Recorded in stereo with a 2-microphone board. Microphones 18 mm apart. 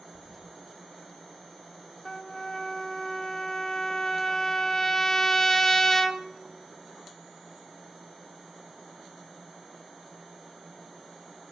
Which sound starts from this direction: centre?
A toilet flushing, at 0.1 s.